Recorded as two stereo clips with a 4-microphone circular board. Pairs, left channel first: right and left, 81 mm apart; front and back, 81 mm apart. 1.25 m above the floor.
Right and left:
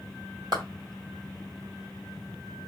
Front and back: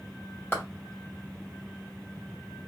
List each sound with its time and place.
0.5 s a clap: 60° left, 1.7 m